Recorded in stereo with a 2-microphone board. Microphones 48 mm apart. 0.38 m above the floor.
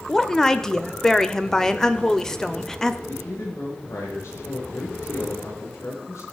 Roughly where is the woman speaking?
Centre.